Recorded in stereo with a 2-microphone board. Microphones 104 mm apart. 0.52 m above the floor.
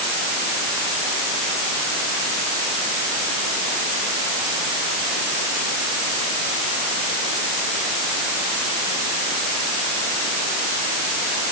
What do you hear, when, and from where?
Only background noise.